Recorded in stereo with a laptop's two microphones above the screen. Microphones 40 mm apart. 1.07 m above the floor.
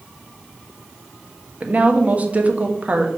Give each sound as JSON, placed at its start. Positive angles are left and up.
{"t": 1.6, "sound": "a woman speaking", "side_deg": -35, "distance_m": 1.2}